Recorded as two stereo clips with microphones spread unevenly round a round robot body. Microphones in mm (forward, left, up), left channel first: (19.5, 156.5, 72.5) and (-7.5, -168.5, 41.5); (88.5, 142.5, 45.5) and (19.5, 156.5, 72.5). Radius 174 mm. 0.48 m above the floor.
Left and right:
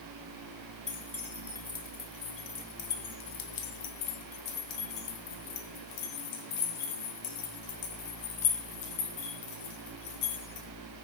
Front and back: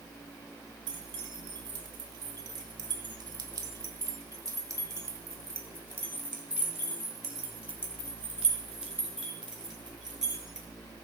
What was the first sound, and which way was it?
Keys jangling, 175° left.